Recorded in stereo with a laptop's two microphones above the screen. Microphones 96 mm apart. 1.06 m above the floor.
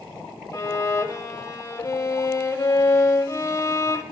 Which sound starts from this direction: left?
A violin, at 0.5 s.